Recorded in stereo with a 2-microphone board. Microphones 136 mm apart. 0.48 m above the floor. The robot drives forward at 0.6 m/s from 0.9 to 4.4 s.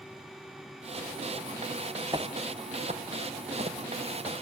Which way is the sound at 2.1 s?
30° right (ahead or behind).